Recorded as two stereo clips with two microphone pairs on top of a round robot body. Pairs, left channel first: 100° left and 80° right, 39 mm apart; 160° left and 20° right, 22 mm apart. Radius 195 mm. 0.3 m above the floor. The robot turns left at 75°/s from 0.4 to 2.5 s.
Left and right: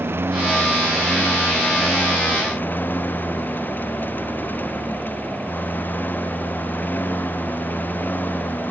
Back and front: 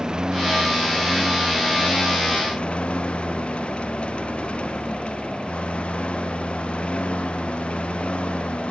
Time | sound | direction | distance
0.0 | a lawn mower | 70° right | ?